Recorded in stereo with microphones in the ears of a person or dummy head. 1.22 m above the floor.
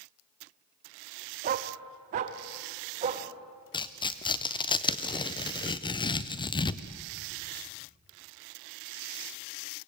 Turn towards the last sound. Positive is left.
turn(degrees=25)  # may be behind; listen again after turning